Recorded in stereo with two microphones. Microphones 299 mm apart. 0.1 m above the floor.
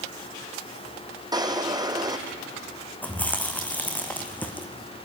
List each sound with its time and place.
1.3 s a drawer: 15° right (ahead or behind), 1.0 m
3.0 s chewing: 5° left (ahead or behind), 1.3 m